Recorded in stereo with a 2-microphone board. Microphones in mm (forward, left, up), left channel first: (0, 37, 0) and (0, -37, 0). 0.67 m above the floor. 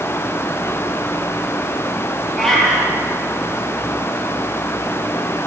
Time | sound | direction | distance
2.4 | a cat meowing | 5° left (ahead or behind) | 8.5 m